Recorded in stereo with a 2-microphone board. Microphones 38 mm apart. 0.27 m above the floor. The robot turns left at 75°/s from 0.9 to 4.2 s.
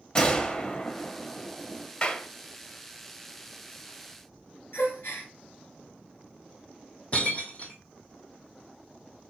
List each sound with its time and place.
0.1 s a gunshot: 20° left (ahead or behind), 0.6 m; by 1.9 s 10° right (ahead or behind), 0.6 m
2.0 s a clap: 20° left (ahead or behind), 0.7 m
4.7 s a gasp: 75° left (ahead or behind), 1.8 m
7.1 s breaking glass: 40° left (ahead or behind), 0.8 m